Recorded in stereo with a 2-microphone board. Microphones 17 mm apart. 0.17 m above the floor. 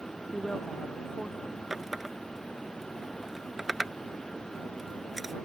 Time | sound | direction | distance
0.3 | a woman speaking | 30° left (ahead or behind) | ?
1.7 | a running tap | 15° right (ahead or behind) | ?